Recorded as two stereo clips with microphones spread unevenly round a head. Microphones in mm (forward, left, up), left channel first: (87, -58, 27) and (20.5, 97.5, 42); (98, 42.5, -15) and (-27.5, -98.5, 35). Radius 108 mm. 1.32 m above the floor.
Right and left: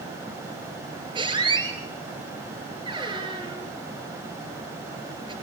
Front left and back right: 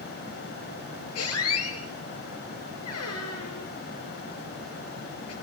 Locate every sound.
1.1 s a squeak: 55° left, 5 m